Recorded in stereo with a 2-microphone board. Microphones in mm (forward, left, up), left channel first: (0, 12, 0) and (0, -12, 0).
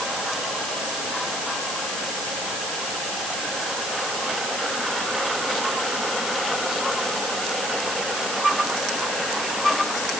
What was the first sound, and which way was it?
Only background noise.